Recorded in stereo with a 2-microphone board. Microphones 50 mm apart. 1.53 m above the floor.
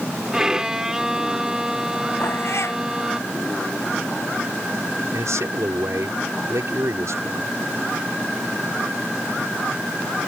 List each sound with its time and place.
0.3 s a violin: 15° right (ahead or behind)
2.2 s a cat meowing: 60° left (ahead or behind)
5.1 s a man speaking: 75° right (ahead or behind)